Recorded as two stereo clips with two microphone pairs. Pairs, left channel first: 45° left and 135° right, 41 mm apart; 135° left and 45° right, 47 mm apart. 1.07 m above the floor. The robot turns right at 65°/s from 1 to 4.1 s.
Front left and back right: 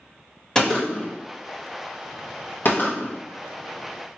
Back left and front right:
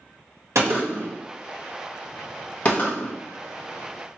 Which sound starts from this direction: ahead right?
A gunshot, at 0.6 s.